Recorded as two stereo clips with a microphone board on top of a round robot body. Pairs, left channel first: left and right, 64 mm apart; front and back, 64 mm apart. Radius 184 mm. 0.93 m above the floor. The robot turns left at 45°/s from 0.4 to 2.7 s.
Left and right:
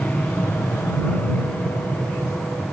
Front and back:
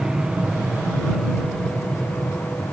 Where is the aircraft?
120° left; by 2.7 s 15° left.